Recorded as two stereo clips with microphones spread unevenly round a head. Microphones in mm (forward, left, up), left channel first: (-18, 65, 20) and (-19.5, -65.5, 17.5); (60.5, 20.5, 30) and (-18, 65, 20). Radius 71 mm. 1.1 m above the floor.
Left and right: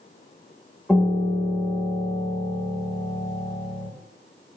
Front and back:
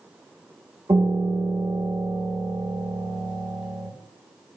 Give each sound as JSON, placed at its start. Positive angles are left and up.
{"t": 0.9, "sound": "a piano", "azimuth_deg": 170, "distance_m": 0.7}